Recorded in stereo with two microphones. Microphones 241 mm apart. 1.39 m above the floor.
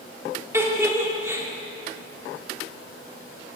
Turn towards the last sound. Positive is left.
turn(degrees=-10)  # may be behind; listen again after turning